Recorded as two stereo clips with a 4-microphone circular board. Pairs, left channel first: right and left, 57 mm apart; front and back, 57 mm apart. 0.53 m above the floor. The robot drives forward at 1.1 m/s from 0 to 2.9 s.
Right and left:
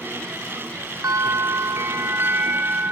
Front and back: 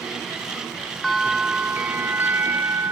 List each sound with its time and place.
1.0 s a bell: 95° left; by 2.9 s 145° left